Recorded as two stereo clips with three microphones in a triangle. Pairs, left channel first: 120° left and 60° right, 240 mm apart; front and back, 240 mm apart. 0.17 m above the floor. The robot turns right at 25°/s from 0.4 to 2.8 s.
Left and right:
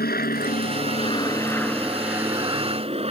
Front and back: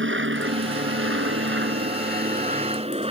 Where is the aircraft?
160° left; by 3.1 s 120° right.